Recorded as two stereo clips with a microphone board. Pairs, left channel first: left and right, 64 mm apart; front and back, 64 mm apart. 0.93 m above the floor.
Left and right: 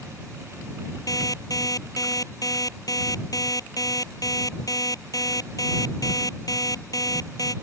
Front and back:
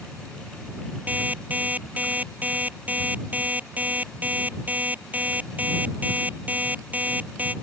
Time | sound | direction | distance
1.1 | an alarm clock | 115° left | ?